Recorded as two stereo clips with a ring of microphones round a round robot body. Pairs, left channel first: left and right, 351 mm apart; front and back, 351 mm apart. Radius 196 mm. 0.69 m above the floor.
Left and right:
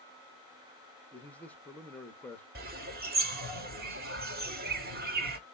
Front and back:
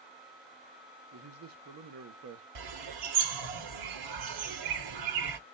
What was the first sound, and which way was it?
A man speaking, 175° left.